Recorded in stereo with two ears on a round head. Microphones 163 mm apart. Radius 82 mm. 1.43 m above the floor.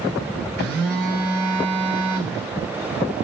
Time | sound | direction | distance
0.6 | a phone buzzing | 50° right (ahead or behind) | 1.9 m